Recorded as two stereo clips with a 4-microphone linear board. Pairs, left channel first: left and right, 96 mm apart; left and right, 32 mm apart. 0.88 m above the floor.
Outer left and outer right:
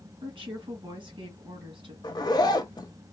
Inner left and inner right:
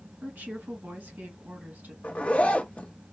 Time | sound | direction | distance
0.2 | a woman speaking | 65° right (ahead or behind) | 1.9 m
2.0 | a zipper | 45° left (ahead or behind) | 0.6 m